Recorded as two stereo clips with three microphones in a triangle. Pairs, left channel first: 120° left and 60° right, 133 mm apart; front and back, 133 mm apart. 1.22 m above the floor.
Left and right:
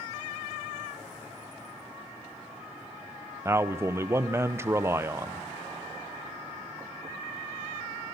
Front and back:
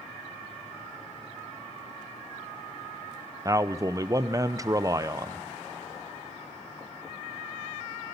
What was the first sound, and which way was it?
A man speaking, 125° right.